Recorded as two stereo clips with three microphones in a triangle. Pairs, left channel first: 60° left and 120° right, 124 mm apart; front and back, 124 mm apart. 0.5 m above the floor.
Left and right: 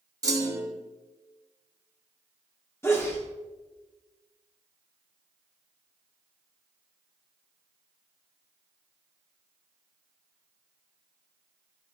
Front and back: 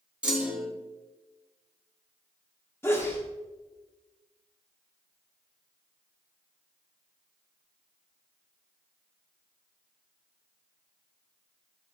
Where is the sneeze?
35° left, 0.7 m.